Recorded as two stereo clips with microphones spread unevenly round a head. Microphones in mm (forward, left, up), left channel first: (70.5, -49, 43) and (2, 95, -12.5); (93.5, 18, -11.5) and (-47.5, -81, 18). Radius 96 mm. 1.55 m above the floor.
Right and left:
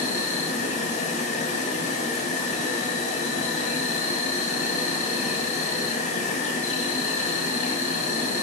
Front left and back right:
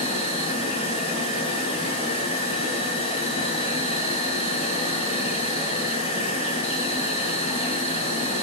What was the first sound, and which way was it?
An insect, 15° right.